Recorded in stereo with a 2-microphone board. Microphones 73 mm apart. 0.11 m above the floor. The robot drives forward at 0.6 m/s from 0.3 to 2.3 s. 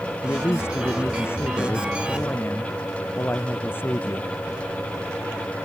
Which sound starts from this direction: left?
A man speaking, at 0.2 s.